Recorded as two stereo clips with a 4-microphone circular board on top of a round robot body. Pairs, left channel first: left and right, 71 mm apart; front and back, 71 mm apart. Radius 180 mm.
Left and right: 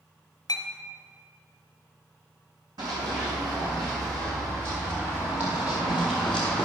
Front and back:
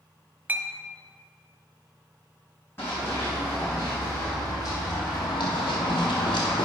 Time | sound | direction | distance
0.5 | a clink | 115° left | 0.7 m
2.8 | running footsteps | 60° right | 2.5 m